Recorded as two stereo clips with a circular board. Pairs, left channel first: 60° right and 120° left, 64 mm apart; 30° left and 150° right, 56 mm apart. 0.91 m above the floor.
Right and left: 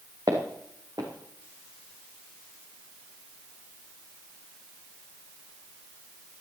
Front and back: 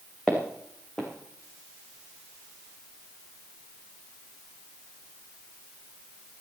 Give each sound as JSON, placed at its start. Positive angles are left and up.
{"t": 0.3, "sound": "footsteps", "azimuth_deg": 105, "distance_m": 3.5}